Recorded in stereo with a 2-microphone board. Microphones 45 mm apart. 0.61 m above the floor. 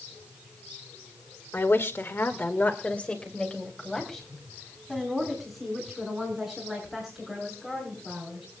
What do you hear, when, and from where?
1.5 s a woman speaking: 65° left (ahead or behind), 1.9 m; by 8.5 s 5° right (ahead or behind), 9.5 m